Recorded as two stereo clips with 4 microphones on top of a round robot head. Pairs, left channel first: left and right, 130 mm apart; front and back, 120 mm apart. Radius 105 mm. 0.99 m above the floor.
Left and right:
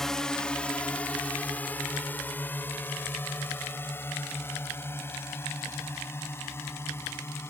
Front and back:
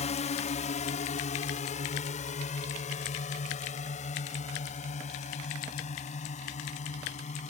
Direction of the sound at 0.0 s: 5° left.